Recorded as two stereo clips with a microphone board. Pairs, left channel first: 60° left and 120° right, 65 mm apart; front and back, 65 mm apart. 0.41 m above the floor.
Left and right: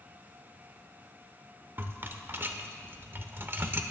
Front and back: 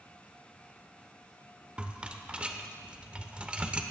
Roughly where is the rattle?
Behind right.